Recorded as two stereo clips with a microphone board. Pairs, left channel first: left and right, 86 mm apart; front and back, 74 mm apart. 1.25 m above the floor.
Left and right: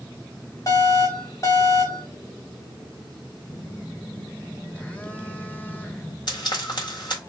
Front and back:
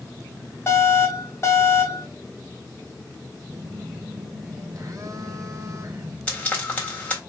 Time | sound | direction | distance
0.7 | an alarm | 45° left | 1.7 m
3.5 | a phone buzzing | 160° left | 0.5 m
6.3 | frying | 65° left | 1.5 m